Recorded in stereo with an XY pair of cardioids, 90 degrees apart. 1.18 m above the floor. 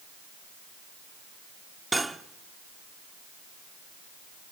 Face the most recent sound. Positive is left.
turn(degrees=-20)